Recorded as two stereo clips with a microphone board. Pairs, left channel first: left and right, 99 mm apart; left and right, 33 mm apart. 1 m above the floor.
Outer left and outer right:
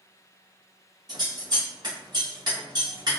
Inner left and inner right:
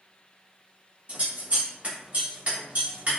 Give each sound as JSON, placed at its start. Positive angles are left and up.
{"t": 1.1, "sound": "scissors", "side_deg": -45, "distance_m": 1.5}